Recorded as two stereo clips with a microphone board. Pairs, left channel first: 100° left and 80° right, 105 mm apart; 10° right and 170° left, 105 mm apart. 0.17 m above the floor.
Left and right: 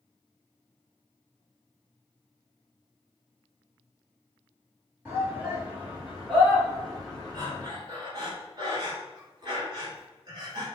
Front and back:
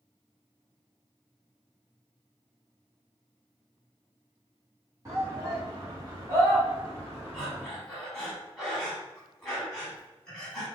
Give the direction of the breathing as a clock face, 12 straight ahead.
3 o'clock.